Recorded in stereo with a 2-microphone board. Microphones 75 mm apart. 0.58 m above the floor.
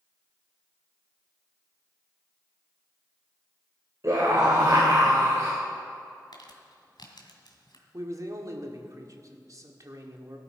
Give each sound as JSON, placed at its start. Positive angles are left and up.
{"t": 4.0, "sound": "a scream", "side_deg": -45, "distance_m": 2.5}
{"t": 6.3, "sound": "crumpling", "side_deg": 75, "distance_m": 2.0}
{"t": 7.9, "sound": "a man speaking", "side_deg": -50, "distance_m": 1.6}